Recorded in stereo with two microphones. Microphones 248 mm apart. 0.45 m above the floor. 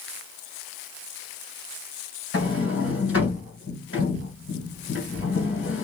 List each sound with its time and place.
2.3 s a sliding door: 60° left (ahead or behind), 1.8 m